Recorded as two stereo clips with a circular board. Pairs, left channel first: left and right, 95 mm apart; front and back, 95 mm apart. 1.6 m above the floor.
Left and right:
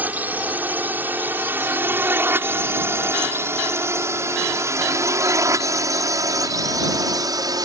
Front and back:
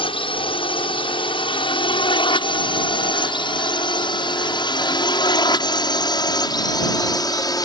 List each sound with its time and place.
0.0 s a drone: 20° right; by 7.7 s 45° right